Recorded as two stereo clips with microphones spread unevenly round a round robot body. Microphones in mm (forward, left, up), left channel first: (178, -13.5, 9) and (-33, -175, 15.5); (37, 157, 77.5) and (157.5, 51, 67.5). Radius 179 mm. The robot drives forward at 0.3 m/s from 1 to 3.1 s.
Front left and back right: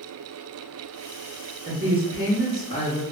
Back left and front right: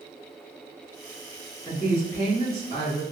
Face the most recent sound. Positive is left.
turn(degrees=-160)